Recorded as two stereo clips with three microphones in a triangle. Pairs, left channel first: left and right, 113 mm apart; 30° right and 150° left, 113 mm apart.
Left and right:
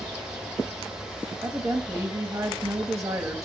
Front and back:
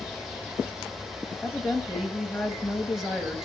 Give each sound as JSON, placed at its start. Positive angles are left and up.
{"t": 1.4, "sound": "a woman speaking", "azimuth_deg": -120, "distance_m": 1.1}